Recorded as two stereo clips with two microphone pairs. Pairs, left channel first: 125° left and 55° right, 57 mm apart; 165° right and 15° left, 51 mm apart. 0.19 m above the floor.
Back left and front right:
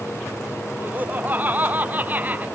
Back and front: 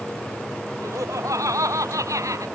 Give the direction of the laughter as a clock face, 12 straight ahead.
12 o'clock.